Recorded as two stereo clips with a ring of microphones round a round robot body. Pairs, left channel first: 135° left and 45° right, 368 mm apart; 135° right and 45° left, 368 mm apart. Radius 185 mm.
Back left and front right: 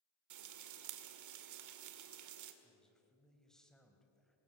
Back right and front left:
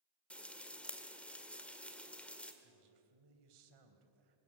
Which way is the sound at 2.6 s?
45° left.